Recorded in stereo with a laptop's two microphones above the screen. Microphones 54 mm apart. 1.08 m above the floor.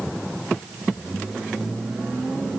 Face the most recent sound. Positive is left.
No sound to turn to.